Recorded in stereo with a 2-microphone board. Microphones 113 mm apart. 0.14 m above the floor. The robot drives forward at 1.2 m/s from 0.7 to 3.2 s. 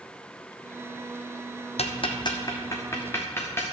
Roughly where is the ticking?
Left.